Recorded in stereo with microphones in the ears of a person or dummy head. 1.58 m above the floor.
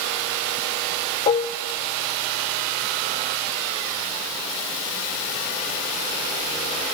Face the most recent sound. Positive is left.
turn(degrees=25)  # may be behind; listen again after turning